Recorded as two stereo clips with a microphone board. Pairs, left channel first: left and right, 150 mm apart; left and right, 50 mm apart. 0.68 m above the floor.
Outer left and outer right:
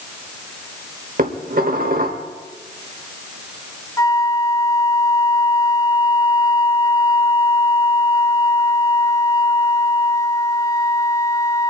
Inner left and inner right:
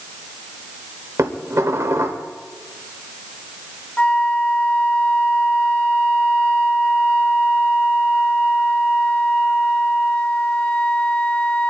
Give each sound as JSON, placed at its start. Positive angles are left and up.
{"t": 1.2, "sound": "dishes clattering", "side_deg": -75, "distance_m": 1.6}
{"t": 4.0, "sound": "a flute", "side_deg": 25, "distance_m": 0.9}